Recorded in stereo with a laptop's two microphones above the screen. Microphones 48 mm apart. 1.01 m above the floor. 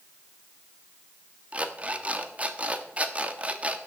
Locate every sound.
1.5 s an alarm clock: 30° right (ahead or behind), 1.0 m